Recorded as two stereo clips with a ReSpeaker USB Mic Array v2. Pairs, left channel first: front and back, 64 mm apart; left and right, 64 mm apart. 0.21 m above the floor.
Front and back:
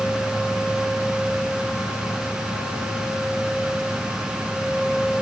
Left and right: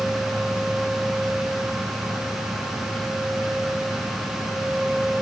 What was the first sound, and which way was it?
Only background noise.